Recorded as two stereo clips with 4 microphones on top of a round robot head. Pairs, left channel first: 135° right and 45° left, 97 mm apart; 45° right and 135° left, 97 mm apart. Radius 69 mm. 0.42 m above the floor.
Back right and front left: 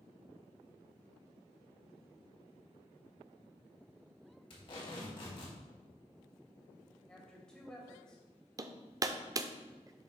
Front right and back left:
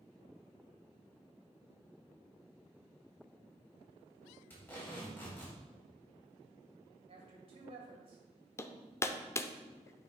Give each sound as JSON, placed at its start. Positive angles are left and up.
{"t": 4.5, "sound": "tape being pulled", "azimuth_deg": -115, "distance_m": 3.0}
{"t": 7.1, "sound": "a woman speaking", "azimuth_deg": 145, "distance_m": 2.5}
{"t": 8.6, "sound": "hammering", "azimuth_deg": 5, "distance_m": 0.6}